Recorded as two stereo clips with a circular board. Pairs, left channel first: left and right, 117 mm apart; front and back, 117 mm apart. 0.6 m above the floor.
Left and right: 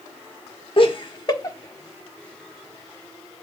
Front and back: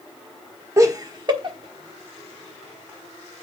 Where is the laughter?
120° left, 1.3 m; by 3.4 s 170° right, 1.7 m.